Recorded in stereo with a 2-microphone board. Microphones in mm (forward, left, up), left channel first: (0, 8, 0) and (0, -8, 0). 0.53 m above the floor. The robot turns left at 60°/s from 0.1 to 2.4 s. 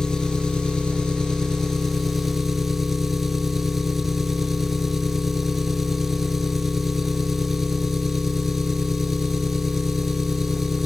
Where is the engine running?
130° left, 2.5 m; by 10.9 s 10° right, 2.5 m.